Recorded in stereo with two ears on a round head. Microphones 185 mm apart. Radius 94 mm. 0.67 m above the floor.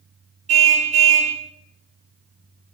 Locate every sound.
0.5 s a car horn: 35° right (ahead or behind), 2.5 m